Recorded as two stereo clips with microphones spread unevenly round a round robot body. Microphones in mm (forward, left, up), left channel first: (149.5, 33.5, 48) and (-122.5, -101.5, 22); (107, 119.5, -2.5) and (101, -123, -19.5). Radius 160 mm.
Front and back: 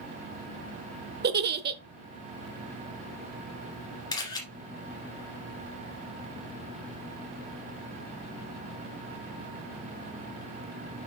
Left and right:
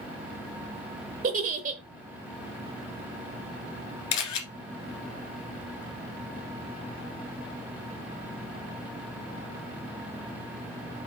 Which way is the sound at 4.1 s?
105° left.